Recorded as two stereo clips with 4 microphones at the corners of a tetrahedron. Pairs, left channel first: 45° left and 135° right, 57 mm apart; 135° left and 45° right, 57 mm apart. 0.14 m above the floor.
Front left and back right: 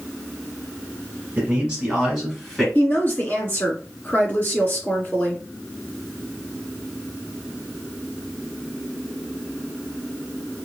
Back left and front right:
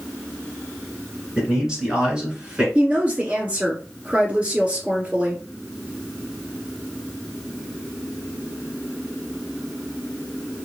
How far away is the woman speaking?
About 1.7 m.